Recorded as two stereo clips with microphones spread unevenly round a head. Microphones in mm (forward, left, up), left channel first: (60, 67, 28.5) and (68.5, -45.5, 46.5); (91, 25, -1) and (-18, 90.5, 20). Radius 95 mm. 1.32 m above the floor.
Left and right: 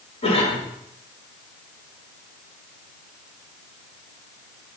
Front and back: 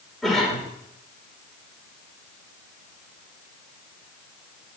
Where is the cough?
60° left, 4.5 m.